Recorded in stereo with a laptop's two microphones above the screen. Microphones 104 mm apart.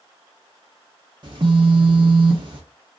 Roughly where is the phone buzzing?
Right.